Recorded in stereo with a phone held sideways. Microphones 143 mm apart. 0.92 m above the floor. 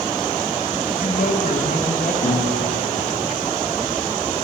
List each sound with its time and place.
0.9 s a man speaking: 65° left (ahead or behind), 9 m
2.2 s a guitar: 50° left (ahead or behind), 9.5 m